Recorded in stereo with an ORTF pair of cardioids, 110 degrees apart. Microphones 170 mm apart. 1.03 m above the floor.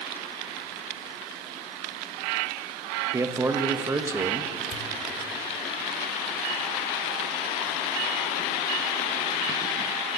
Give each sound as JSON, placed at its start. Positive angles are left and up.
{"t": 3.1, "sound": "a man speaking", "azimuth_deg": -20, "distance_m": 0.9}
{"t": 4.7, "sound": "a pop", "azimuth_deg": 45, "distance_m": 1.0}